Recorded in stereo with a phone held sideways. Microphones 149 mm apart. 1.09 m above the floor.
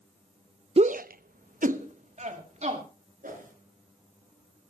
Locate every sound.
0.8 s a shout: 40° right (ahead or behind), 0.5 m; by 2.8 s 50° right (ahead or behind), 2.5 m
3.2 s a whoosh: 65° right (ahead or behind), 3 m